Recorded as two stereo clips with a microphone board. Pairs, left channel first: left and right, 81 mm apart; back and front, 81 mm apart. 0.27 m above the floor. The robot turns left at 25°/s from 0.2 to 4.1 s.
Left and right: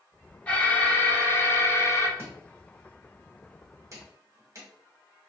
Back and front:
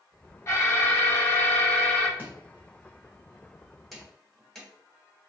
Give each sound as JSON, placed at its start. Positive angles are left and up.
{"t": 0.5, "sound": "an alarm", "azimuth_deg": 150, "distance_m": 0.8}
{"t": 2.2, "sound": "chopping", "azimuth_deg": -50, "distance_m": 1.2}